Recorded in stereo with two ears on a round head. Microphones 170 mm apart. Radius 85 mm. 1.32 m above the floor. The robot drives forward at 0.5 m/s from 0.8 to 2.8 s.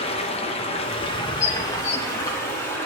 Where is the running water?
30° left (ahead or behind), 0.9 m; by 2.9 s 15° left (ahead or behind), 1.8 m.